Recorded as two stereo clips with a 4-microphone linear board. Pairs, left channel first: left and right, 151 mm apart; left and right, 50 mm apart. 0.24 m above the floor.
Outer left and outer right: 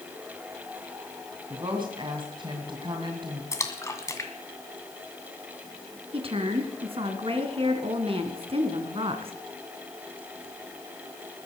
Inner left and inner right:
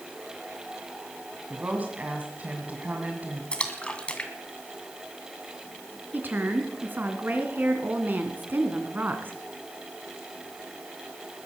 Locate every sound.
1.5 s a woman speaking: 35° right (ahead or behind), 2.5 m
3.5 s a splash: 20° left (ahead or behind), 2 m
6.1 s a woman speaking: 40° right (ahead or behind), 2.5 m